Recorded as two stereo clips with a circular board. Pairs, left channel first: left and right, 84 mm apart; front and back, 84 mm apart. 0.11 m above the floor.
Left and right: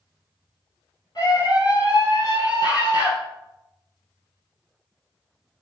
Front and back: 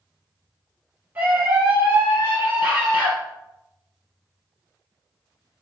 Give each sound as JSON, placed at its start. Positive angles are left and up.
{"t": 1.1, "sound": "a scream", "azimuth_deg": 120, "distance_m": 3.5}